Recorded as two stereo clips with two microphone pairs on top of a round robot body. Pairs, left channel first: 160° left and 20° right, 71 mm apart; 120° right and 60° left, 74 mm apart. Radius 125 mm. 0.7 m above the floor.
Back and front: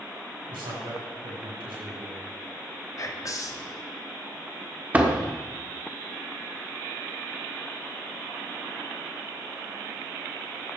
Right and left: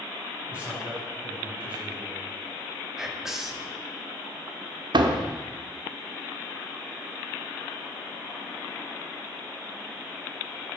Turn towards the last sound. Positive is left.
turn(degrees=55)